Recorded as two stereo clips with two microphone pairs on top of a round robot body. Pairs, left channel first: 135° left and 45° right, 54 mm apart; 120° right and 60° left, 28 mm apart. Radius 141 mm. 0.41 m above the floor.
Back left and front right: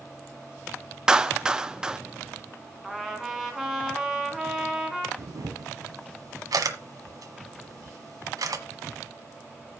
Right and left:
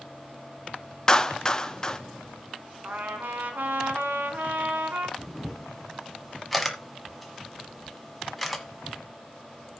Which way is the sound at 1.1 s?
95° right.